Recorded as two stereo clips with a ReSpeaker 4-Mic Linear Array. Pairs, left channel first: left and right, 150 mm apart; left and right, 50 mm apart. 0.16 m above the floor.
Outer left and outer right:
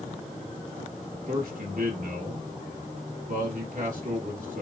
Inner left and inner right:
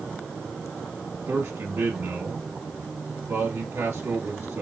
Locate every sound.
1.3 s a man speaking: 65° right (ahead or behind), 2 m